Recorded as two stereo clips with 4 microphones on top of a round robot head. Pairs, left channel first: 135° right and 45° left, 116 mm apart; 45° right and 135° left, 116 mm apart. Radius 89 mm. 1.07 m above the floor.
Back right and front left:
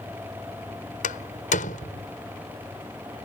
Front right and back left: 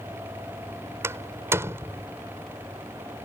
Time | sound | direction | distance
1.0 | a door slam | 155° right | ?